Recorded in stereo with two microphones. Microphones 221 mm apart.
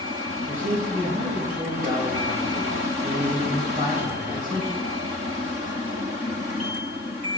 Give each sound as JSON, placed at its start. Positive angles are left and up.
{"t": 0.5, "sound": "a man speaking", "side_deg": -35, "distance_m": 3.0}